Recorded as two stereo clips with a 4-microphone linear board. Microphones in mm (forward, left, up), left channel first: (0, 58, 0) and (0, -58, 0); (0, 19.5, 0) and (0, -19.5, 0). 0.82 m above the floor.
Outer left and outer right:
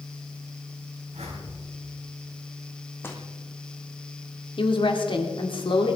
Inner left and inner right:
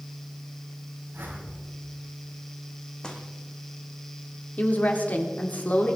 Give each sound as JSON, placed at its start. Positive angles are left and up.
{"t": 1.1, "sound": "a whoosh", "side_deg": -70, "distance_m": 5.0}
{"t": 3.0, "sound": "footsteps", "side_deg": 20, "distance_m": 1.9}
{"t": 4.6, "sound": "a woman speaking", "side_deg": 50, "distance_m": 2.0}